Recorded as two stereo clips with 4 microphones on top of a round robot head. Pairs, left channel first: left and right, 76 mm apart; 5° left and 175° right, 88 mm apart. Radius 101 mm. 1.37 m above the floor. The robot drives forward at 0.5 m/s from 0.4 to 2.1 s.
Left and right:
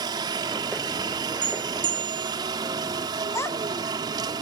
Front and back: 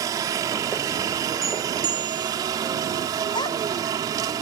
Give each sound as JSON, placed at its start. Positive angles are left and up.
{"t": 0.0, "sound": "a helicopter", "azimuth_deg": -120}
{"t": 1.4, "sound": "a bell", "azimuth_deg": -85}
{"t": 3.4, "sound": "a child speaking", "azimuth_deg": 40}